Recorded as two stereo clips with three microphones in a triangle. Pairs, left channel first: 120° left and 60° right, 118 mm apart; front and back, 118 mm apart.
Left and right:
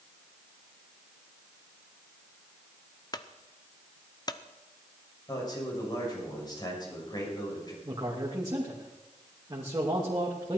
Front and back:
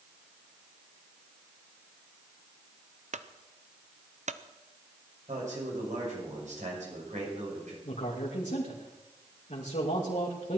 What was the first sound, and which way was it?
A clunk, 175° left.